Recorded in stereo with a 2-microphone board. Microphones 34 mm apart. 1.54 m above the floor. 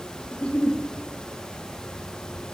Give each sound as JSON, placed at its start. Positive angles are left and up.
{"t": 0.3, "sound": "a giggle", "side_deg": 25, "distance_m": 0.9}